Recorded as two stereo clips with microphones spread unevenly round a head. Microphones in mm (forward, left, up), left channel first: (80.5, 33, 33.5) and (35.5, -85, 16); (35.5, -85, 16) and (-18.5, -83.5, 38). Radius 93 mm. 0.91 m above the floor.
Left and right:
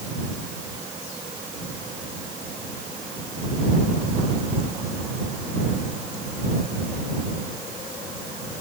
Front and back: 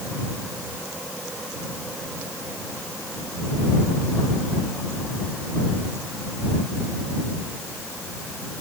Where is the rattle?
I don't hear a rattle.